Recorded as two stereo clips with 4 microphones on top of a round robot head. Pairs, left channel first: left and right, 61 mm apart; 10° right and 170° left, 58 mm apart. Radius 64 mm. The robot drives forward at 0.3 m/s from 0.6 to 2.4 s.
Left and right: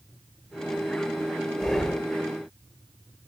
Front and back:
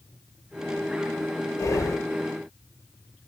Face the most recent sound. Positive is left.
turn(degrees=15)